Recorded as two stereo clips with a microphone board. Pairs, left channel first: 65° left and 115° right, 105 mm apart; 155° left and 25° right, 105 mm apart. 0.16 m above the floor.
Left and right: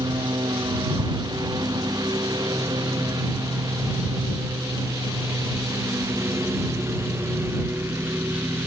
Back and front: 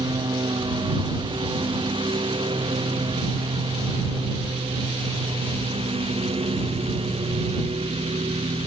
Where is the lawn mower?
65° right; by 8.7 s 45° right.